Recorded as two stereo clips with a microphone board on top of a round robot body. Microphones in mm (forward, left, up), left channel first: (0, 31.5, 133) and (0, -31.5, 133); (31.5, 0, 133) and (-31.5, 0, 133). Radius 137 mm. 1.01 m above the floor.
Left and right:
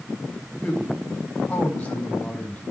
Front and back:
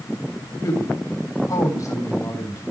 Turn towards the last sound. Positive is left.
turn(degrees=20)